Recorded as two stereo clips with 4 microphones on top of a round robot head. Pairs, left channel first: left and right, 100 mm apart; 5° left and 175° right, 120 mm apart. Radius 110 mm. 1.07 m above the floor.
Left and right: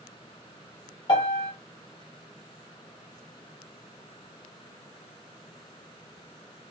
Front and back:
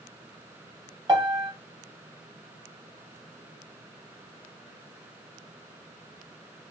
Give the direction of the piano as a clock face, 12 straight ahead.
8 o'clock.